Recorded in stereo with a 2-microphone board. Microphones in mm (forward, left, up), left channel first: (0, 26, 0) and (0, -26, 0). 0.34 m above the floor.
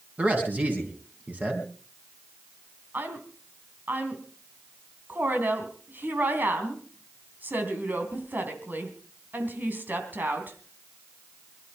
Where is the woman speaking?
40° right (ahead or behind), 3 m.